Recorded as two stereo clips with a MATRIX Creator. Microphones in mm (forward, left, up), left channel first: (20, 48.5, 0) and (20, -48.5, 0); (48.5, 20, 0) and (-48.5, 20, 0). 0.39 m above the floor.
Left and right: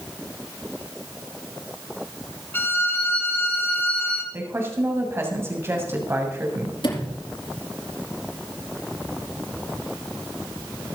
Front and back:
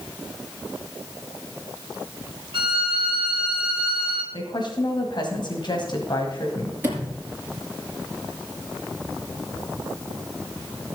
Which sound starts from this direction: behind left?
A violin, at 2.5 s.